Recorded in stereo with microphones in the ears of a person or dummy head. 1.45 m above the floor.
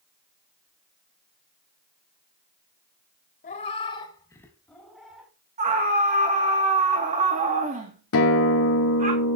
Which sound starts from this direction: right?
A scream, at 5.6 s.